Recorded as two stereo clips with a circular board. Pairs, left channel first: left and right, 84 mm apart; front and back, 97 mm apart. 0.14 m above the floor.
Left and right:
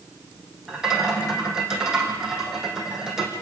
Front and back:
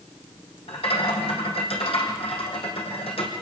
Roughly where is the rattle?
Ahead.